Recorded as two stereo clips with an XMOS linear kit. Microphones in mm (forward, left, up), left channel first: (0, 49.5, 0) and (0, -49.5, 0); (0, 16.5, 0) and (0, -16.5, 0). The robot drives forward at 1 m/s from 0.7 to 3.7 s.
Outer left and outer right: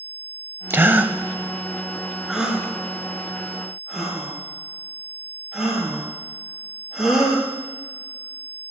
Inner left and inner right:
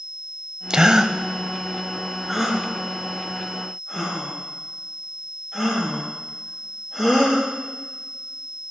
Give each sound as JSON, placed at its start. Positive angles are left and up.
{"t": 0.7, "sound": "a gasp", "side_deg": -25, "distance_m": 0.6}